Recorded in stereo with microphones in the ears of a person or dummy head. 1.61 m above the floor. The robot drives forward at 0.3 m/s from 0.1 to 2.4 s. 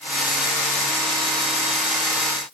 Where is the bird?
No bird in this recording.